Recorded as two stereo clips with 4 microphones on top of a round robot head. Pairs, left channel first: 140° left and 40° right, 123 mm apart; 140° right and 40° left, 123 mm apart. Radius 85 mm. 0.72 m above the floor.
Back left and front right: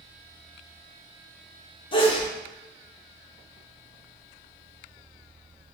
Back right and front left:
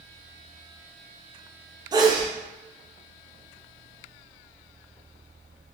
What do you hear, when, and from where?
1.9 s a sneeze: 95° left, 0.8 m